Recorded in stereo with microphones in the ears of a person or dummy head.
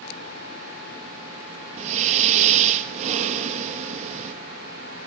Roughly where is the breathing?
Right.